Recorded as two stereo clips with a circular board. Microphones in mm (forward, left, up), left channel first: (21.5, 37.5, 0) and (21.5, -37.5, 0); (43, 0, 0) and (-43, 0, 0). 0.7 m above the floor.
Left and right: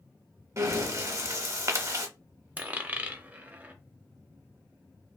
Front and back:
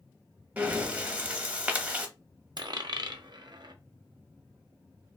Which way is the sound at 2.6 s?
155° right.